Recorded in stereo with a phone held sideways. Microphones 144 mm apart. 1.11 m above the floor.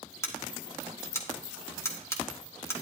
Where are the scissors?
20° left (ahead or behind), 1.5 m.